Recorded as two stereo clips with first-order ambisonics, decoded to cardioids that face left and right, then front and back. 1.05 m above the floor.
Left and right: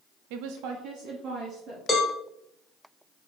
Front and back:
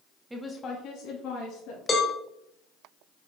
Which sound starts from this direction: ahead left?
A cowbell, at 1.9 s.